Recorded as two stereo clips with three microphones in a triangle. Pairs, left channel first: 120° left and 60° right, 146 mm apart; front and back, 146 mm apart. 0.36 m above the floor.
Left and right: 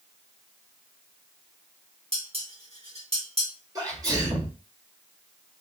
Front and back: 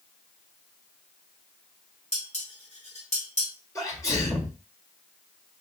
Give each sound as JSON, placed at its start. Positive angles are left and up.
{"t": 2.1, "sound": "dishes clattering", "azimuth_deg": -25, "distance_m": 1.5}
{"t": 3.8, "sound": "a sneeze", "azimuth_deg": -40, "distance_m": 1.0}